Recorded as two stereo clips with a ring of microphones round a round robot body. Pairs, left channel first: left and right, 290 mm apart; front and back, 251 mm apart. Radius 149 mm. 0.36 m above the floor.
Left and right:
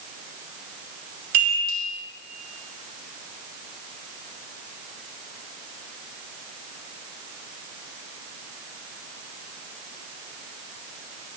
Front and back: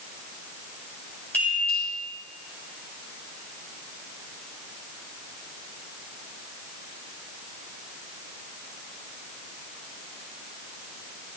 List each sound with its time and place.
1.3 s a chime: 85° right, 2.5 m